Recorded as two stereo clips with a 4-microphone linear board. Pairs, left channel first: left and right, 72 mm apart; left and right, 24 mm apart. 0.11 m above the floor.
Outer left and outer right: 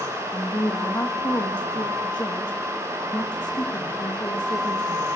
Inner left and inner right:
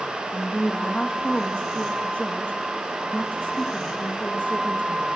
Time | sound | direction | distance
0.3 | a woman speaking | 80° left | 6.5 m